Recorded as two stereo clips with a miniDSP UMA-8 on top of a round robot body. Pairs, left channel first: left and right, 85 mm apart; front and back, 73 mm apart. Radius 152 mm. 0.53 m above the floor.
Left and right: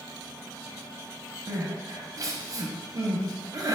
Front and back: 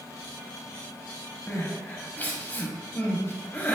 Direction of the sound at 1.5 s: 65° right.